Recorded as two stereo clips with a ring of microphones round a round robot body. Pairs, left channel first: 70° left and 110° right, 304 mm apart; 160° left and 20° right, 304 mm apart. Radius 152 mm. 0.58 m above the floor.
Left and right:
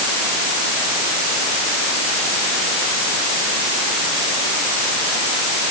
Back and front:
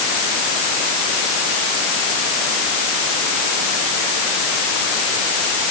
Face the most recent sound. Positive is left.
No sound to turn to.